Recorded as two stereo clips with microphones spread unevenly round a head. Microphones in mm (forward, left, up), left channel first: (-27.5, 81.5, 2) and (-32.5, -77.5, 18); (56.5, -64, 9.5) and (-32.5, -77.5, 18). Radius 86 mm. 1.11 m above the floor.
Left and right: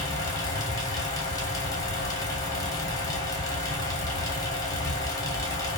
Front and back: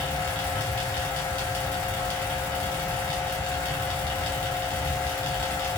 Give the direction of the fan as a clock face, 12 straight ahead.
10 o'clock.